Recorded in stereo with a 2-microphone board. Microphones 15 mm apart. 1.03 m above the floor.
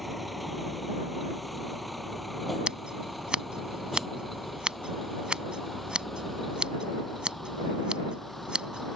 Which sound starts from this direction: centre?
A vehicle, at 0.0 s.